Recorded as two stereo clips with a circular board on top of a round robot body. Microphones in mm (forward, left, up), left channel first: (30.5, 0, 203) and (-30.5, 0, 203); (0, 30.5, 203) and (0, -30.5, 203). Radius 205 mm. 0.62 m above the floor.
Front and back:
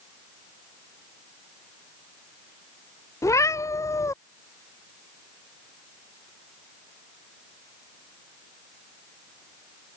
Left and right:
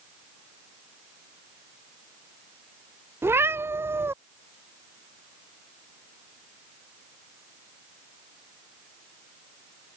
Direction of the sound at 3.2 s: 40° right.